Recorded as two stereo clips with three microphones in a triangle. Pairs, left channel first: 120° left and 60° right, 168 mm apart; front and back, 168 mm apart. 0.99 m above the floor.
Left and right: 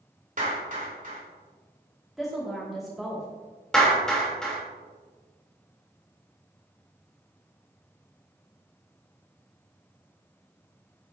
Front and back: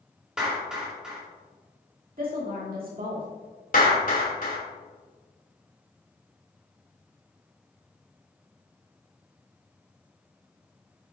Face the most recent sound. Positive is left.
turn(degrees=35)